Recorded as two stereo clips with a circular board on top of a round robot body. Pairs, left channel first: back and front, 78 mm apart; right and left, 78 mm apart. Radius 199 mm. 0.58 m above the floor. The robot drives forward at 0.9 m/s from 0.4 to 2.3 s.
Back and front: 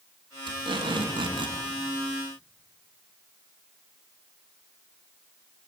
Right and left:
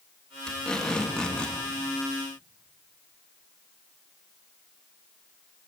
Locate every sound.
0.5 s tape being pulled: 10° right, 5 m